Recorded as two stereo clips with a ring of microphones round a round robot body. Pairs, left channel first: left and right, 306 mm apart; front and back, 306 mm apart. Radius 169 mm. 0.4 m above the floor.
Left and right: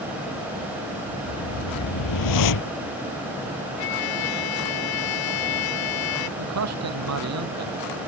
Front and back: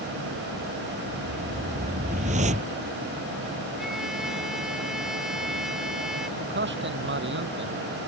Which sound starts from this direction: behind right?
A man speaking, at 6.4 s.